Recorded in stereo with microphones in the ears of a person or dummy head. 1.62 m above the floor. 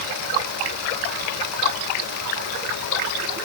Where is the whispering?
No whispering in this recording.